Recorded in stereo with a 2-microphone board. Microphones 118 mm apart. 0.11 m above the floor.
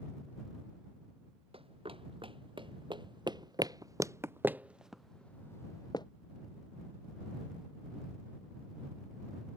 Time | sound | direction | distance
1.5 | running footsteps | 50° right (ahead or behind) | ?